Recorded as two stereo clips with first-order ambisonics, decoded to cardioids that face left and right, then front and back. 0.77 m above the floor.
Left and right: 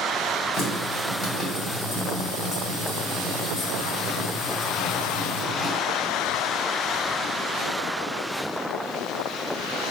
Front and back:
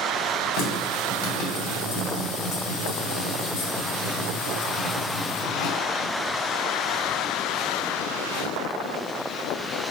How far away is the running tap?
About 1.0 m.